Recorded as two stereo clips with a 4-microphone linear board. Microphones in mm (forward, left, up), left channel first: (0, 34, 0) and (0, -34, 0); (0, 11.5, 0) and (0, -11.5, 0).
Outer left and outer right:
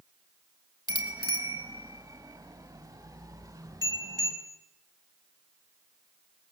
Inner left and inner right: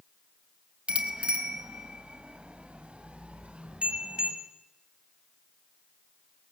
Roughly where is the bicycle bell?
Right.